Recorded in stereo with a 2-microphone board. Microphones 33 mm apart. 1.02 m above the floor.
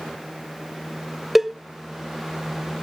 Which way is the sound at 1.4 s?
5° right (ahead or behind).